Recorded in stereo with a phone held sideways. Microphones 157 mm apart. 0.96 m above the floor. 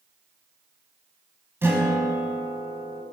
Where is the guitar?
15° right (ahead or behind), 1.3 m.